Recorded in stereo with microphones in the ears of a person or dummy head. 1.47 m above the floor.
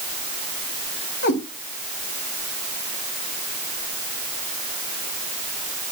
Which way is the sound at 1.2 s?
50° left (ahead or behind).